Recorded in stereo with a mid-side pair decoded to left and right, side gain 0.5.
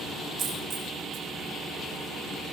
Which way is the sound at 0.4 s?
50° right.